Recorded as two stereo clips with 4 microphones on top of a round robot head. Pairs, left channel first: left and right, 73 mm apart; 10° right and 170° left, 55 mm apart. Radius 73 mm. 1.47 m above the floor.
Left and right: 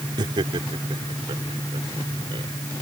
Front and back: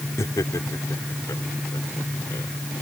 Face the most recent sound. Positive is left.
turn(degrees=-60)